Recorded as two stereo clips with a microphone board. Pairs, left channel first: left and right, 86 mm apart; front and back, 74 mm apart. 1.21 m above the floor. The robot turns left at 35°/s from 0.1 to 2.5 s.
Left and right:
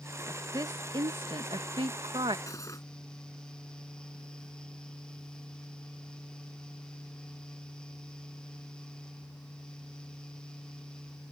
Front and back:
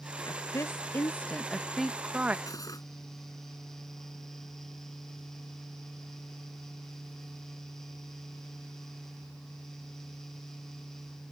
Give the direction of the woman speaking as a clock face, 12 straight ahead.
1 o'clock.